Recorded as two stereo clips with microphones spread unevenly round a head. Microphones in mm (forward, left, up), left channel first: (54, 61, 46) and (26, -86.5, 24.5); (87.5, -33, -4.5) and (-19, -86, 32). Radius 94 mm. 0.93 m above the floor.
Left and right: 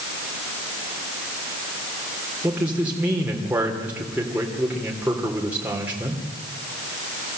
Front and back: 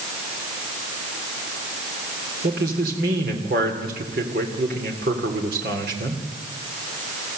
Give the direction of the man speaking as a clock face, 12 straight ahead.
6 o'clock.